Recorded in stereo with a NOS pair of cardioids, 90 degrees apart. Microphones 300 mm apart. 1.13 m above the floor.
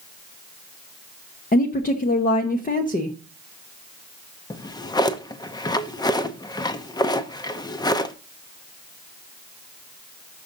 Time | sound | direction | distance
1.5 | a woman speaking | 30° left | 1.1 m
4.5 | a drawer | 15° left | 0.8 m